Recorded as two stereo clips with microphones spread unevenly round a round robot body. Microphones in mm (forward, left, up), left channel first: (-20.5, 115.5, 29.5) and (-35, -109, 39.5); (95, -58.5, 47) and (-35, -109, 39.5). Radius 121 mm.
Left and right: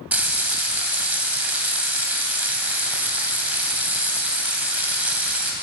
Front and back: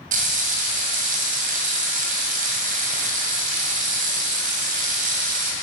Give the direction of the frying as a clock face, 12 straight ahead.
6 o'clock.